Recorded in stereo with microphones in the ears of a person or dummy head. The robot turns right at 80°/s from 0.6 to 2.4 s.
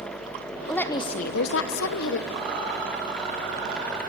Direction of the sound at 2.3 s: 55° right (ahead or behind).